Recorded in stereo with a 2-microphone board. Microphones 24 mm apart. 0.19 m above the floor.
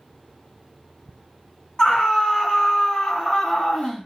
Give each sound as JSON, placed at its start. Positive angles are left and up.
{"t": 1.8, "sound": "a scream", "side_deg": 35, "distance_m": 1.4}